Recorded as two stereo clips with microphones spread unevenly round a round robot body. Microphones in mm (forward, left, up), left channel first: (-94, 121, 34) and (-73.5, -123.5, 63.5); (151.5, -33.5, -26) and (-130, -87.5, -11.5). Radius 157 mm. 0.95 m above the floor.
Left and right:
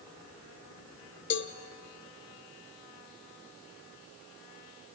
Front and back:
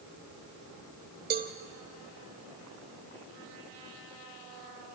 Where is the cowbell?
135° left, 1.0 m.